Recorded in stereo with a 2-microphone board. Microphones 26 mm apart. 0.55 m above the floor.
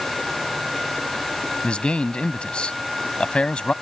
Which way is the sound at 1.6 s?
45° left (ahead or behind).